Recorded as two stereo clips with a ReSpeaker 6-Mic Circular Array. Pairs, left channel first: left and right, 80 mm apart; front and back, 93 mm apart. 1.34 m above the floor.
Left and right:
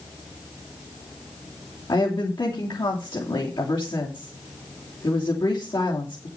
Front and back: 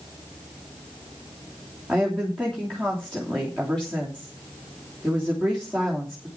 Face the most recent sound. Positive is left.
turn(degrees=85)